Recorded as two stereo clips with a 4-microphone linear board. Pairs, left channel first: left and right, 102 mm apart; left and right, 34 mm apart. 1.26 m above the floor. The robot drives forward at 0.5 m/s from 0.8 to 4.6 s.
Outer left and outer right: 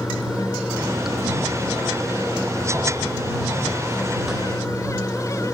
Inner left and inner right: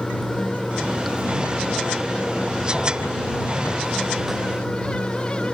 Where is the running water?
5° right (ahead or behind).